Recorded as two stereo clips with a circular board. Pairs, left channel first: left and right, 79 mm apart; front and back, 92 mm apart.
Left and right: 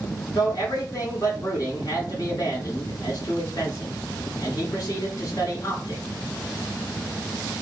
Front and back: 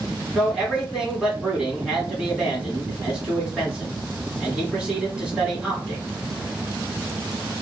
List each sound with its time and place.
0.3 s a man speaking: 100° left, 1.5 m